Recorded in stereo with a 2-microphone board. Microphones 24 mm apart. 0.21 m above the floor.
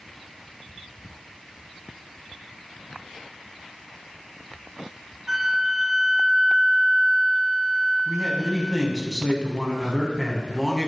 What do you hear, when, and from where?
5.3 s a flute: 20° right (ahead or behind), 1.9 m
8.1 s a man speaking: 5° left (ahead or behind), 1.8 m